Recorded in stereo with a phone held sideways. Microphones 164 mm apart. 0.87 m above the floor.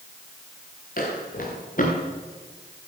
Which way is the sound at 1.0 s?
65° left (ahead or behind).